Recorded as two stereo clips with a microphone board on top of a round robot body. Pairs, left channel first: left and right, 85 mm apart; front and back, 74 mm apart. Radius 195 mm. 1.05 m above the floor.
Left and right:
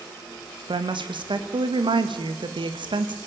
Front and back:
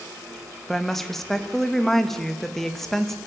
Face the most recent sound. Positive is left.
turn(degrees=-85)